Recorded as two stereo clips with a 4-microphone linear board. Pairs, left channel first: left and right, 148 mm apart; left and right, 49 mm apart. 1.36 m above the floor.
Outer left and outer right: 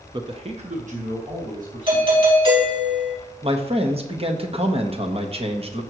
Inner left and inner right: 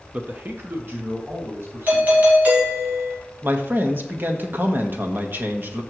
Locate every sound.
0.1 s a man speaking: 30° right (ahead or behind), 0.7 m; by 2.3 s 65° right (ahead or behind), 3 m
1.9 s a doorbell: 35° right (ahead or behind), 3.5 m
3.4 s a man speaking: 45° right (ahead or behind), 1.4 m